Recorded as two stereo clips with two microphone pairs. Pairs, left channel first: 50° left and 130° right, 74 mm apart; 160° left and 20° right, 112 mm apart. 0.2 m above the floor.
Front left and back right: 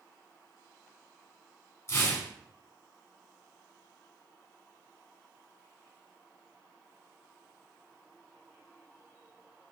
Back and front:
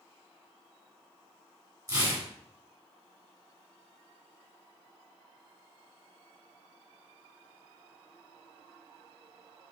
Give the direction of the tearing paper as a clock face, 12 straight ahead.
11 o'clock.